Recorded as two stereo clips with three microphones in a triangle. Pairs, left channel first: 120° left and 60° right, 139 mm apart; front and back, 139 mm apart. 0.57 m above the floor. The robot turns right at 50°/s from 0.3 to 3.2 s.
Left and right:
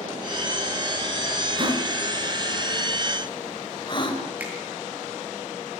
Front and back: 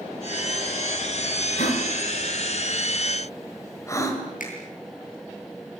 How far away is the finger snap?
About 9 m.